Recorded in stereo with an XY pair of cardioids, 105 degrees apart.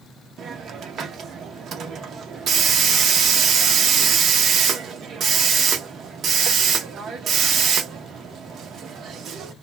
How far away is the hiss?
About 0.8 m.